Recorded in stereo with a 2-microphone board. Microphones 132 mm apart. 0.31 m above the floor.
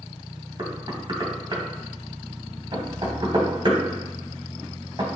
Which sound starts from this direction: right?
Knocking, at 0.6 s.